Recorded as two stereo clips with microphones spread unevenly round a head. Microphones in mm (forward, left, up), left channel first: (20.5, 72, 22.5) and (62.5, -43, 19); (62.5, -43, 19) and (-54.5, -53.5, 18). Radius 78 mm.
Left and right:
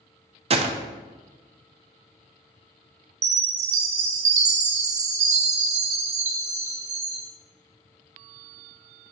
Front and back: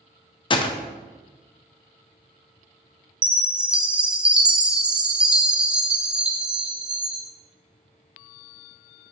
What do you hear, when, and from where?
0.5 s a gunshot: 35° right, 0.6 m
3.2 s a chime: 95° right, 0.8 m